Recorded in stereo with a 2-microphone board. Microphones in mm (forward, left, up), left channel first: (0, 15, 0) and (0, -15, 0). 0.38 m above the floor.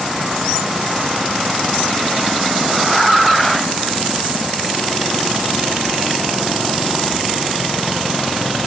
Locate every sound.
Only background noise.